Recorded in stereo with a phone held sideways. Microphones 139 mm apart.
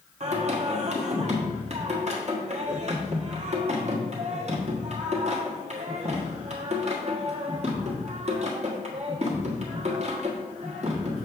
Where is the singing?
50° right (ahead or behind), 1.3 m.